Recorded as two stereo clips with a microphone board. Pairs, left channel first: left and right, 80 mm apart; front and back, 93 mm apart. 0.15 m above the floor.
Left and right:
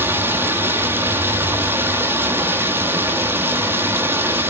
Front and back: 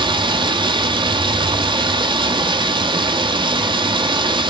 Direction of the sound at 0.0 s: 150° right.